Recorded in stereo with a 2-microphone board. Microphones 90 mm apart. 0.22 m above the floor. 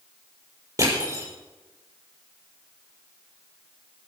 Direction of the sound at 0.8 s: 40° right (ahead or behind).